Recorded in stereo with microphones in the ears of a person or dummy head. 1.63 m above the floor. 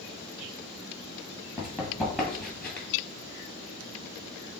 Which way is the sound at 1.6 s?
15° right (ahead or behind).